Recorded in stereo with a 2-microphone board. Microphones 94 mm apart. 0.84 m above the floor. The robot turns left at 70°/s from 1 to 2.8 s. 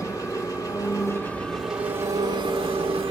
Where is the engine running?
40° left, 2 m; by 3.1 s 85° right, 2 m.